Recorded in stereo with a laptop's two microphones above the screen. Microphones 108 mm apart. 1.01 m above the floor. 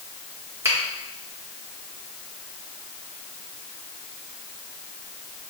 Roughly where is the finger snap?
Right.